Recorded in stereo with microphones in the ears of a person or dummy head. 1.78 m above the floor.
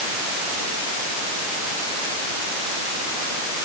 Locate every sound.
Only background noise.